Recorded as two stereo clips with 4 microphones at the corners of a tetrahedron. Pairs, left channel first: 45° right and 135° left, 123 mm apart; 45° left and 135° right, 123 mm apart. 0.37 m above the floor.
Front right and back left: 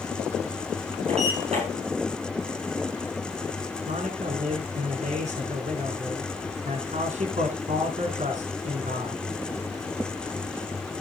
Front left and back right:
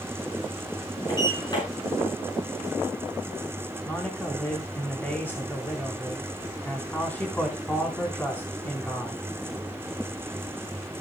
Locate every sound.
1.1 s a sliding door: 100° left, 9.5 m
3.9 s a man speaking: 120° left, 4 m